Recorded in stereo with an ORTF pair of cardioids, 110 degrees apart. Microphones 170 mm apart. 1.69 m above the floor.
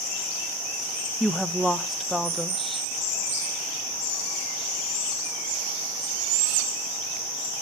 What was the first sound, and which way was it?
A woman speaking, straight ahead.